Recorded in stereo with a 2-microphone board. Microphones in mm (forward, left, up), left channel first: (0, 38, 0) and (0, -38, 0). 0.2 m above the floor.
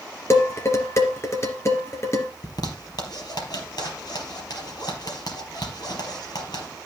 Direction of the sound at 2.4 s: 60° left (ahead or behind).